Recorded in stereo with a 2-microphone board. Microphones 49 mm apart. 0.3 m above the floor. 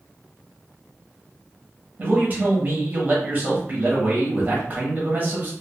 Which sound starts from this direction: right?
A man speaking, at 2.0 s.